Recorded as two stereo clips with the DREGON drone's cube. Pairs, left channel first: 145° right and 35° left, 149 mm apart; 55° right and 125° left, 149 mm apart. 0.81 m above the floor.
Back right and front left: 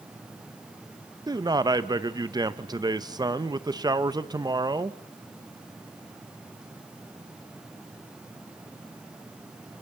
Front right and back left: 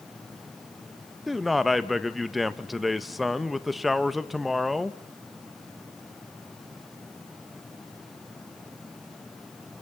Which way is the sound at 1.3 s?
35° left.